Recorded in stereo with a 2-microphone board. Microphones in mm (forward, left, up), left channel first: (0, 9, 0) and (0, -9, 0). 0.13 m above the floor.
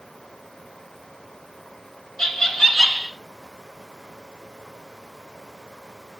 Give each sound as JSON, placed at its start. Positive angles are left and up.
{"t": 2.2, "sound": "laughter", "side_deg": 30, "distance_m": 1.6}